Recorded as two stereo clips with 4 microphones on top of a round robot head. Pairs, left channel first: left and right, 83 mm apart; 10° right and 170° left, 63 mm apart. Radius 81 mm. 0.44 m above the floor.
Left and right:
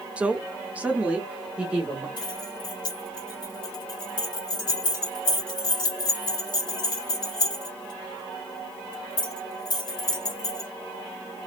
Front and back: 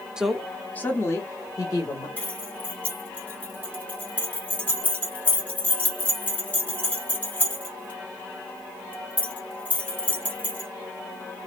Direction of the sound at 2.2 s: 55° left.